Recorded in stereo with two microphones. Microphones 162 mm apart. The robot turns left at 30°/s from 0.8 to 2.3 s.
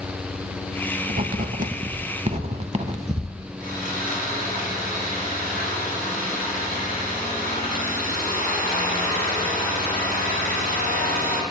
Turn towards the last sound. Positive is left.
turn(degrees=-65)  # may be behind; listen again after turning